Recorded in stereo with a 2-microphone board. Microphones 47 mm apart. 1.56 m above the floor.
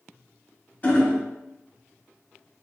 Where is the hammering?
25° left (ahead or behind), 1.1 m.